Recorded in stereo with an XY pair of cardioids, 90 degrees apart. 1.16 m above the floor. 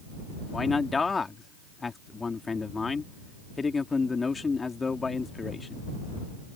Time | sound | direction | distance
0.5 | a man speaking | 35° left | ?